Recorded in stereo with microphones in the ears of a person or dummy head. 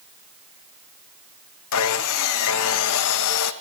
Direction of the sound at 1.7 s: 80° left.